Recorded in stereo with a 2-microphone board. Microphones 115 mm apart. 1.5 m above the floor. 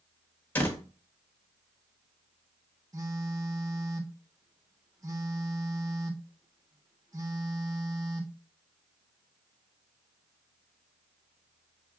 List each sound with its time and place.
0.6 s a door slam: 15° left (ahead or behind), 1.1 m
2.9 s a phone buzzing: 30° right (ahead or behind), 0.7 m